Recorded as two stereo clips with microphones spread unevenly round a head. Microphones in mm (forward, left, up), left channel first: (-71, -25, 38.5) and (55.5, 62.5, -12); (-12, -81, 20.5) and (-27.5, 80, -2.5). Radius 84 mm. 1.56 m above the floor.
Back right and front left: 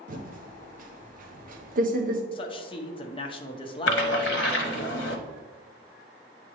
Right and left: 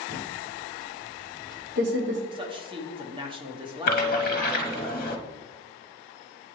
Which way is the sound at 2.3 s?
155° left.